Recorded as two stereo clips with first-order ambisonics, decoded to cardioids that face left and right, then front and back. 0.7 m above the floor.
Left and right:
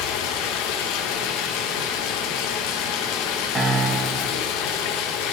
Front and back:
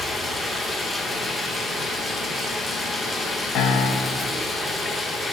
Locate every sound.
0.0 s running water: 85° left, 0.9 m
3.5 s a piano: 25° right, 0.7 m